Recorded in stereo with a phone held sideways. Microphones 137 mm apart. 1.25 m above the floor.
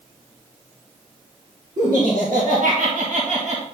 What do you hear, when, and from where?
1.8 s laughter: 80° right, 2.5 m; by 3.6 s 55° right (ahead or behind), 1.7 m